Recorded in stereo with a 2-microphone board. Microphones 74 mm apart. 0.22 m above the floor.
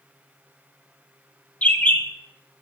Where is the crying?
I don't hear crying.